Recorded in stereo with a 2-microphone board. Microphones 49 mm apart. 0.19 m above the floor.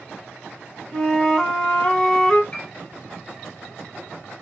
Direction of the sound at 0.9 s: 15° left (ahead or behind).